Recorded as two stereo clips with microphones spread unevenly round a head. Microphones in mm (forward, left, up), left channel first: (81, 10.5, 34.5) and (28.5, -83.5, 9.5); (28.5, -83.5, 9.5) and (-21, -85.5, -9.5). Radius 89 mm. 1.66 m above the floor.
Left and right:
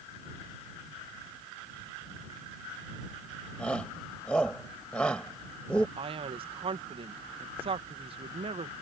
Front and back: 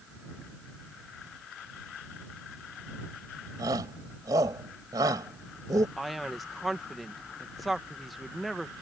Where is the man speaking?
85° right.